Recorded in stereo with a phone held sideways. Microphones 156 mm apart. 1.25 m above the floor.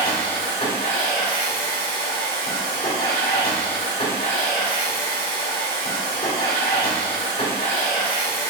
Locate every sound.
0.0 s a machine running: 40° left (ahead or behind), 2.5 m